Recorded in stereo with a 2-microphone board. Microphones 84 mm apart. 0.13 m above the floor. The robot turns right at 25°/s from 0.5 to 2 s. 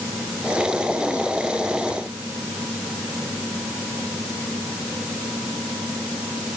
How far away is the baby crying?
No baby crying in this recording.